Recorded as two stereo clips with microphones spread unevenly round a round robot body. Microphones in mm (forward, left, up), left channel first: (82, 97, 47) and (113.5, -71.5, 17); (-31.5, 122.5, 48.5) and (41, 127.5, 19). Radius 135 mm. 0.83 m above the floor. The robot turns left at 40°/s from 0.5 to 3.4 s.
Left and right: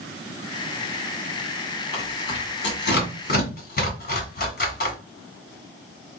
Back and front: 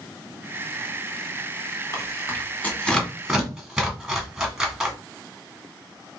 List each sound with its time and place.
1.9 s tearing paper: 130° left, 2.0 m; by 5.0 s 70° left, 2.0 m